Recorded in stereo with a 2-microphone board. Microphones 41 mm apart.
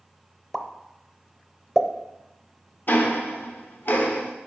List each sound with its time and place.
0.5 s a pop: 5° left (ahead or behind), 0.6 m
2.9 s ticking: 55° left (ahead or behind), 0.8 m